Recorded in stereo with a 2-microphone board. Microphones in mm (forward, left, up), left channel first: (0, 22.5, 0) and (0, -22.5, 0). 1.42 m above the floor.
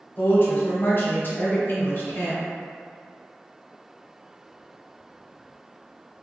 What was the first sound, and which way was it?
A woman speaking, 50° left (ahead or behind).